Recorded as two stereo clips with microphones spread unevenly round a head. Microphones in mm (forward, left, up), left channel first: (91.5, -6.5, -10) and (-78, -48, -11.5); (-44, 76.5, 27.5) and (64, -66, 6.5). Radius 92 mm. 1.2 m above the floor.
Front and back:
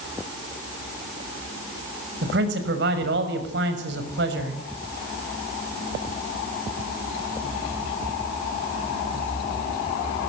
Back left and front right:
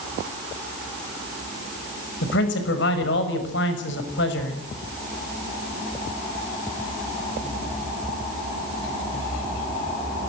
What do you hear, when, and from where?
2.2 s a man speaking: 160° left, 6 m